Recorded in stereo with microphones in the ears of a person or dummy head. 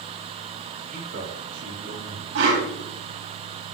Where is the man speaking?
50° right (ahead or behind), 4.5 m; by 2.2 s 75° right (ahead or behind), 4 m.